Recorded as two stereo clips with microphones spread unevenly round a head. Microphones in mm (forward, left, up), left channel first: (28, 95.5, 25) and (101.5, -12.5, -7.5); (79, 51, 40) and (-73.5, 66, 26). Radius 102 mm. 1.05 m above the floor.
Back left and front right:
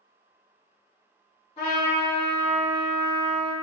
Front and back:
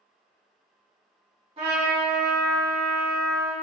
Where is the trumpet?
130° left, 1.4 m.